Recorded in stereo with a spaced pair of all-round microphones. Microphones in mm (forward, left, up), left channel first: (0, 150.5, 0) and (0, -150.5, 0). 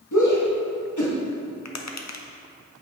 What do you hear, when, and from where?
0.1 s a shout: 75° left (ahead or behind), 1.4 m
1.6 s tapping: 65° left (ahead or behind), 0.6 m